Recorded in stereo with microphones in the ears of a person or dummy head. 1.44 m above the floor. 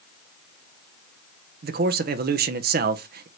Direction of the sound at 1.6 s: 45° right (ahead or behind).